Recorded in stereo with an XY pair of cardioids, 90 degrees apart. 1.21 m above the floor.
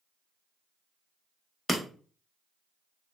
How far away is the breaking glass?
About 0.9 m.